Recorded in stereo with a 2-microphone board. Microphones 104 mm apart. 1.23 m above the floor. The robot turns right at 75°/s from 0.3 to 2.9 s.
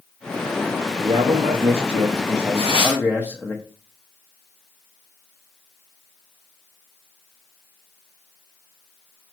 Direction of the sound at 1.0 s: 135° right.